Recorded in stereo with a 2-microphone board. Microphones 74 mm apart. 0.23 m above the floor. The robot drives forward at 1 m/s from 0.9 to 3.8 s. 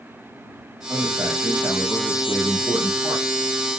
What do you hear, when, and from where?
0.9 s a man speaking: 65° right (ahead or behind), 8 m; by 3.5 s 50° right (ahead or behind), 9.5 m